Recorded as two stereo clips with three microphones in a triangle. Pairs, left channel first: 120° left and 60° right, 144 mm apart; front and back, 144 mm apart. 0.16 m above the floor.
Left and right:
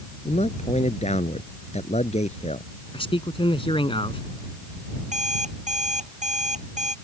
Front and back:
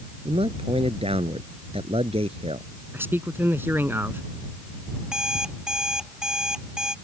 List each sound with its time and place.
0.2 s a man speaking: 145° left
2.9 s a man speaking: 115° left
5.0 s an alarm clock: 95° right